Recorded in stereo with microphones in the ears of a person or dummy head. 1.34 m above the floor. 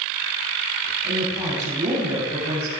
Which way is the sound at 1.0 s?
35° right (ahead or behind).